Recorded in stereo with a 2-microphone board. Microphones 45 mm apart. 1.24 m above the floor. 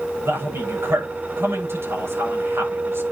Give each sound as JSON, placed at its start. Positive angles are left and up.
{"t": 0.2, "sound": "a man speaking", "side_deg": -70, "distance_m": 8.5}